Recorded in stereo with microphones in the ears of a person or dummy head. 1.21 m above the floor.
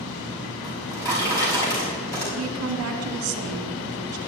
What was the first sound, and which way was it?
A drawer, 15° left (ahead or behind).